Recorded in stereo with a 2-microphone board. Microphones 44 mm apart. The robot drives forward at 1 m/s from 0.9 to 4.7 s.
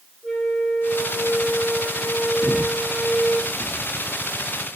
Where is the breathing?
40° left (ahead or behind), 0.7 m; by 4.1 s 15° left (ahead or behind), 1.5 m.